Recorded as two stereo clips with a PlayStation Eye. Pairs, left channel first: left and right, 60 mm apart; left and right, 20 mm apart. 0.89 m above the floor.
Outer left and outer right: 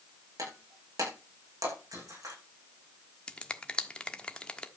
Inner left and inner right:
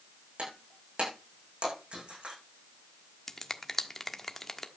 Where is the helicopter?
I don't hear a helicopter.